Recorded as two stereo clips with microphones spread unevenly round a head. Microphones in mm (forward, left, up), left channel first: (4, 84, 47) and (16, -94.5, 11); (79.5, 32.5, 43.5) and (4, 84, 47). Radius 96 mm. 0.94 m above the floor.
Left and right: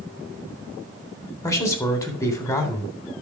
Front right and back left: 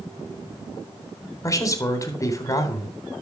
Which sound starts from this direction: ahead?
A man speaking, at 1.4 s.